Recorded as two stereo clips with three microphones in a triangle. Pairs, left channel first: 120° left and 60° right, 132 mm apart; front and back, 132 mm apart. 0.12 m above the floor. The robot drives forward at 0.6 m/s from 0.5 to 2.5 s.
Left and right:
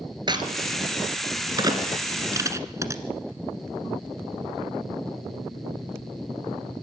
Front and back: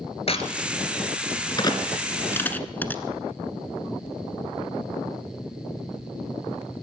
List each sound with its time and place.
0.3 s a crack: 15° right, 2 m; by 3.0 s 55° right, 1.4 m